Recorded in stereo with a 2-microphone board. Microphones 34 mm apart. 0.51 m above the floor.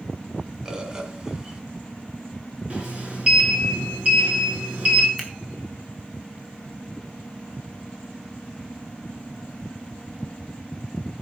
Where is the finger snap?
5° right (ahead or behind), 2.5 m.